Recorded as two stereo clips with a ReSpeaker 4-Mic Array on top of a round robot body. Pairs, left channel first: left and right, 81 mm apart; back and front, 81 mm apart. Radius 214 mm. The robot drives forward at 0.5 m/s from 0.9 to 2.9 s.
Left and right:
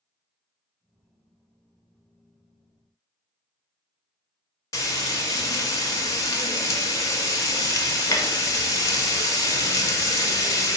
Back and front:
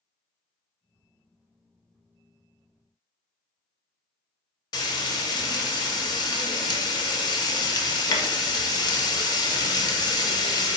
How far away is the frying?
About 0.8 m.